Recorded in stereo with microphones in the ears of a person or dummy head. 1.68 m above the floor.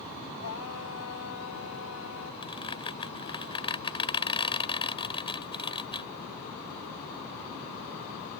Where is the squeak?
25° left (ahead or behind).